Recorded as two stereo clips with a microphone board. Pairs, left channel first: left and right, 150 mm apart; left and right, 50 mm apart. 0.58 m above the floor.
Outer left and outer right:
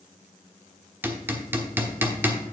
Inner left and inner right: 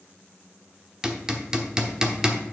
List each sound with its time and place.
1.0 s hammering: 15° right (ahead or behind), 1.0 m